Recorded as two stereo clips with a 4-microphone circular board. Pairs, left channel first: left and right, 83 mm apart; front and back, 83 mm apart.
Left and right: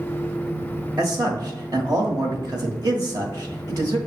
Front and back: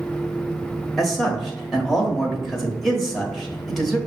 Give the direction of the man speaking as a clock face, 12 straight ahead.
3 o'clock.